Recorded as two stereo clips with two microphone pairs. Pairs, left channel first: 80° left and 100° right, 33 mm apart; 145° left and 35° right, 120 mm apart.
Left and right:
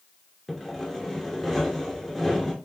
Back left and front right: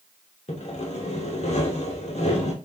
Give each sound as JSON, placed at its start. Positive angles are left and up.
{"t": 0.5, "sound": "sawing", "azimuth_deg": 160, "distance_m": 0.7}